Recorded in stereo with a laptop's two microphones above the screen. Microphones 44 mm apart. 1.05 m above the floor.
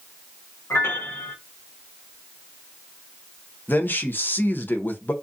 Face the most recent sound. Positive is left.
turn(degrees=50)  # may be behind; listen again after turning